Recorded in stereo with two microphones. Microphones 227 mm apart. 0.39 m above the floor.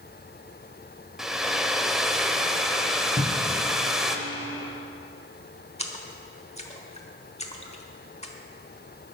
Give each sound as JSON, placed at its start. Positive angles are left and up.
{"t": 1.2, "sound": "a hair dryer", "side_deg": 0, "distance_m": 0.9}
{"t": 3.2, "sound": "a cupboard door", "side_deg": 45, "distance_m": 1.4}
{"t": 5.8, "sound": "a splash", "side_deg": 30, "distance_m": 1.3}